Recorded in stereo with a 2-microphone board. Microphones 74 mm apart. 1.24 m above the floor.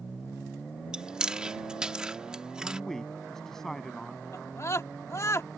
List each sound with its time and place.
0.9 s chewing: 10° right (ahead or behind)
2.6 s a man speaking: 5° left (ahead or behind)
4.3 s a scream: 40° left (ahead or behind)